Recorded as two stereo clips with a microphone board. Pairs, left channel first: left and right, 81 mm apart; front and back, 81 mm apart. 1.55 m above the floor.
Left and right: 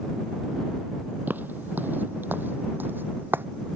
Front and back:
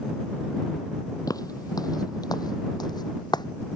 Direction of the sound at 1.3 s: 30° right.